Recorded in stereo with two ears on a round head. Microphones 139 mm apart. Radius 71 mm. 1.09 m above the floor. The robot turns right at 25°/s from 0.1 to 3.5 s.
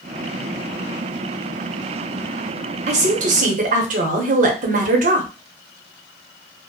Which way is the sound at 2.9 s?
45° right (ahead or behind).